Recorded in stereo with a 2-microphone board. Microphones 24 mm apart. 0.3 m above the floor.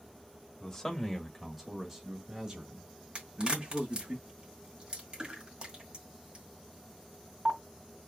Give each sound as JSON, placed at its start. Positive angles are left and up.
{"t": 0.6, "sound": "a man speaking", "side_deg": 25, "distance_m": 1.4}
{"t": 3.1, "sound": "a crack", "side_deg": -35, "distance_m": 1.9}